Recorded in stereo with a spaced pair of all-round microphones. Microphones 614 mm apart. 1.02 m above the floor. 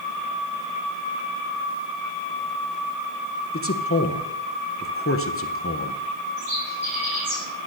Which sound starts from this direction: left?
A man speaking, at 3.5 s.